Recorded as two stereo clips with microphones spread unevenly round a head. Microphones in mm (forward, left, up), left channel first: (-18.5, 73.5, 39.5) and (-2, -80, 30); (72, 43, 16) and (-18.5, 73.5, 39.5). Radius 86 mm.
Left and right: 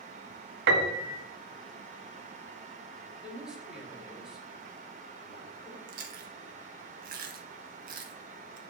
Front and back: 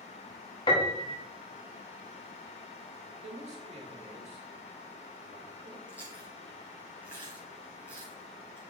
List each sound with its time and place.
0.7 s a piano: 80° right, 1.3 m
3.2 s a man speaking: 170° right, 3 m
5.9 s chewing: 120° right, 1.5 m